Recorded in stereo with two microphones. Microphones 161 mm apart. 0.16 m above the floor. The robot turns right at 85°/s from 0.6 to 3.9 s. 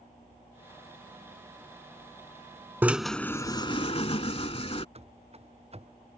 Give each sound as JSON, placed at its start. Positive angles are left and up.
{"t": 2.8, "sound": "a drill", "azimuth_deg": -20}
{"t": 5.0, "sound": "running footsteps", "side_deg": -40}